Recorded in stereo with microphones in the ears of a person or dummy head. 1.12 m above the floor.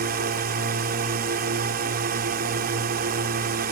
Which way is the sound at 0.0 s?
45° right (ahead or behind).